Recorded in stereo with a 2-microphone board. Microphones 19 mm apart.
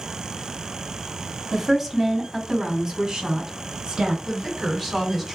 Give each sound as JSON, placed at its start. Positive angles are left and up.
{"t": 1.5, "sound": "a woman speaking", "side_deg": 0, "distance_m": 1.2}
{"t": 4.2, "sound": "a woman speaking", "side_deg": 0, "distance_m": 2.0}